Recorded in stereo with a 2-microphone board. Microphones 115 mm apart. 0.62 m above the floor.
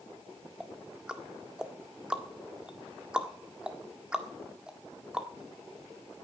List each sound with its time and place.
0.6 s ticking: 10° right (ahead or behind), 1.6 m